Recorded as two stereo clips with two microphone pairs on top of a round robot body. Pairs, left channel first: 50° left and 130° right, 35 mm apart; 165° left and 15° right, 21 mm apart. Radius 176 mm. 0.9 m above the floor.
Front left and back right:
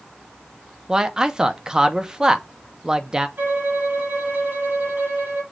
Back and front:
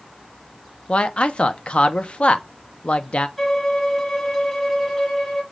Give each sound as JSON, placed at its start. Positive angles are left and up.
{"t": 0.9, "sound": "a man speaking", "azimuth_deg": 160, "distance_m": 0.9}
{"t": 3.4, "sound": "a violin", "azimuth_deg": -120, "distance_m": 2.5}